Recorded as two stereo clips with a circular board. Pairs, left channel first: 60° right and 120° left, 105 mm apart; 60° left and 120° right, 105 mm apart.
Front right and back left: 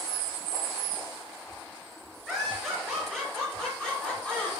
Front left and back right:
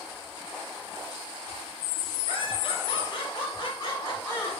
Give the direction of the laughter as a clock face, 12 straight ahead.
11 o'clock.